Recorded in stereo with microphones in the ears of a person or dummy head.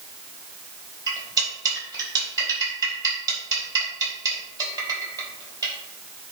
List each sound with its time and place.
1.1 s cutlery clinking: 20° right (ahead or behind), 4 m